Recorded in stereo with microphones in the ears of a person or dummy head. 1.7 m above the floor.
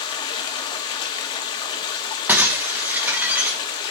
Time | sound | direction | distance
0.0 | running water | 25° left (ahead or behind) | 1.2 m
2.3 | breaking glass | 10° right (ahead or behind) | 1.0 m